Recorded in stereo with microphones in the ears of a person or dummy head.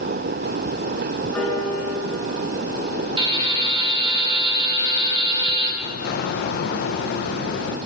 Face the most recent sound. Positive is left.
turn(degrees=50)  # may be behind; listen again after turning